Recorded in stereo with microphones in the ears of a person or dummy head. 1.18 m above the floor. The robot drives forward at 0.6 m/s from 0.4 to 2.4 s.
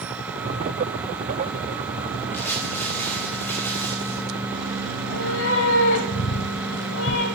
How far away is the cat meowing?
About 1.6 m.